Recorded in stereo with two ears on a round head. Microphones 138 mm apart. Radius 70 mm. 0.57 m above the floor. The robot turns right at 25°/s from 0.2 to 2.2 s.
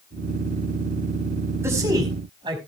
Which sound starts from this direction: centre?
A man speaking, at 1.6 s.